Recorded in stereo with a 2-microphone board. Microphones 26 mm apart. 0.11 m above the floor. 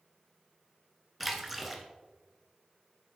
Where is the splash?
5° right (ahead or behind), 1.1 m.